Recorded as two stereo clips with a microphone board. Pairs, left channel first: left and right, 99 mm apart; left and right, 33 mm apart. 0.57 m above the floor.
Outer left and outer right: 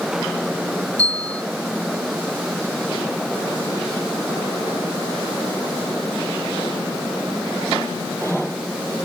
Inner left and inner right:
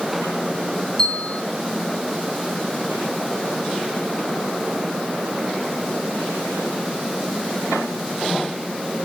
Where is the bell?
10° left (ahead or behind), 1.6 m.